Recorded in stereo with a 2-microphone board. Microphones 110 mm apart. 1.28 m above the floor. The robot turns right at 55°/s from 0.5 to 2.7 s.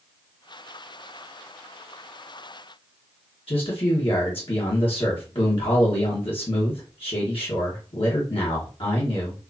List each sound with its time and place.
3.5 s a man speaking: 55° left (ahead or behind), 1.3 m